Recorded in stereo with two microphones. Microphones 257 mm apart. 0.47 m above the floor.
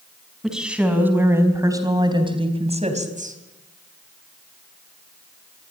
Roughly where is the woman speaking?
Centre.